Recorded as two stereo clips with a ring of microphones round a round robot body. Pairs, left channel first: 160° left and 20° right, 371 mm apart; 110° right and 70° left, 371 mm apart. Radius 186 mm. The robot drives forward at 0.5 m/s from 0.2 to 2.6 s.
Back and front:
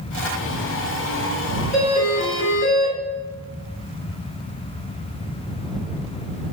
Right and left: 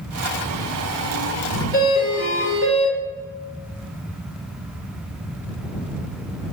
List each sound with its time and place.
1.7 s a doorbell: 125° left, 1.2 m; by 3.0 s 155° left, 1.3 m